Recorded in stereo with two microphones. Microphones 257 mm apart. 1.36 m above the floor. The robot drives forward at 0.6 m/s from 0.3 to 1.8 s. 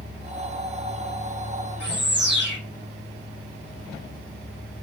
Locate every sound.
1.8 s a bird: 45° right (ahead or behind), 1.0 m